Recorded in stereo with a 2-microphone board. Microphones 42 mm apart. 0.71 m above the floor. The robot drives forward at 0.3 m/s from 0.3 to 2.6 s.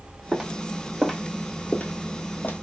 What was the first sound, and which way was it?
Footsteps, 10° right (ahead or behind).